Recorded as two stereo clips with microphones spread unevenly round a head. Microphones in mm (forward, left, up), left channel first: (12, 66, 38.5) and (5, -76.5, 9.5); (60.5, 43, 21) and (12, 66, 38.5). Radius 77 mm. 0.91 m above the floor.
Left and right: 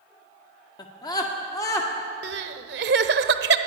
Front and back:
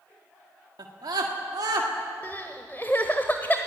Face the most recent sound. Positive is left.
turn(degrees=-115)